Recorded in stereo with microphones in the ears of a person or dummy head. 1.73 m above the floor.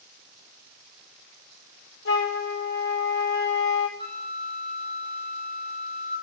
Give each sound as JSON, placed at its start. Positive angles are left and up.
{"t": 2.0, "sound": "a flute", "side_deg": 60, "distance_m": 1.5}
{"t": 4.0, "sound": "a flute", "side_deg": 25, "distance_m": 4.5}